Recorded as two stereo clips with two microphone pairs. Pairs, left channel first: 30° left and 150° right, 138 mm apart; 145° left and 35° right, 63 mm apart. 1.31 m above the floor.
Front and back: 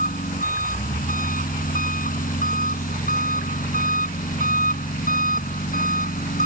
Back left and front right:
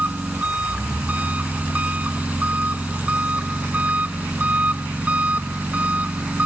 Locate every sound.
0.0 s an engine running: 30° left